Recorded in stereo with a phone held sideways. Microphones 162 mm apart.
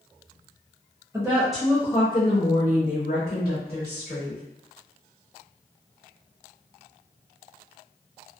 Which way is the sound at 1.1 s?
20° right (ahead or behind).